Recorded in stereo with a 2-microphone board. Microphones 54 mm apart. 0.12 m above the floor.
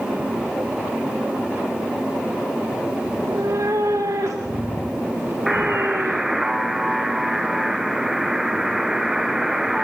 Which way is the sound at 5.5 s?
10° right (ahead or behind).